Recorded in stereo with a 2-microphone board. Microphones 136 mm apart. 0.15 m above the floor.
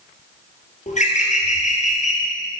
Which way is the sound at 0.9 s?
65° left (ahead or behind).